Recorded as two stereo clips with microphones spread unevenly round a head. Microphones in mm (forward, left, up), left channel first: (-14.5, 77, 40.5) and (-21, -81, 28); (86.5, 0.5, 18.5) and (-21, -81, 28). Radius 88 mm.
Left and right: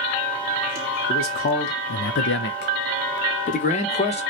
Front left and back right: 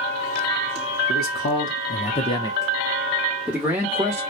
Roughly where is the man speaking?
Ahead left.